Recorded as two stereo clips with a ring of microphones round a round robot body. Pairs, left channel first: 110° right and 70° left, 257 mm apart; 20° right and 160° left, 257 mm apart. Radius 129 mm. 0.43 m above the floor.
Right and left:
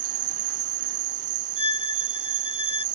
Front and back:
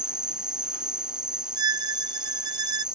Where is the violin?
175° left.